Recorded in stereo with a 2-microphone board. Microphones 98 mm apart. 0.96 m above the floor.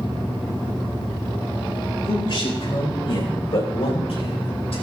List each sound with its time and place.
2.0 s a man speaking: 50° left (ahead or behind), 4.5 m; by 4.8 s 80° left, 2.5 m